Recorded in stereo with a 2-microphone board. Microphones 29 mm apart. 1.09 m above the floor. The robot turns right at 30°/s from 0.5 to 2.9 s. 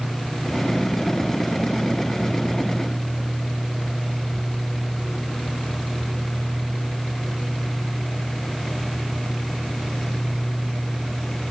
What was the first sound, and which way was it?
Only background noise.